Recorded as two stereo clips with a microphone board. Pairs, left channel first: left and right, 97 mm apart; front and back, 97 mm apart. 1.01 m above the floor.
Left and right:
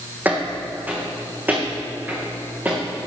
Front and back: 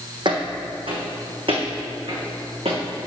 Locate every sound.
0.2 s footsteps: 160° right, 1.9 m